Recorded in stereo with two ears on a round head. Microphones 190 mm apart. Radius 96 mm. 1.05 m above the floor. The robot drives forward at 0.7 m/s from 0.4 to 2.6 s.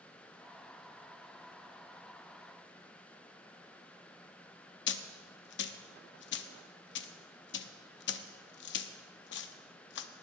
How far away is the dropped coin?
About 0.7 m.